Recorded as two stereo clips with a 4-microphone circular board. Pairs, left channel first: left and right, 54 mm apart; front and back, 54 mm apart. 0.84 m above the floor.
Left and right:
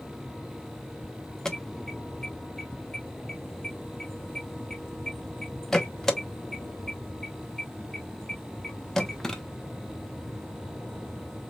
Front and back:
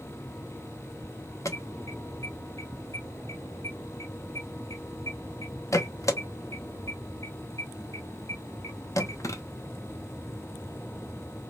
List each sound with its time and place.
1.4 s an alarm: 10° left, 0.8 m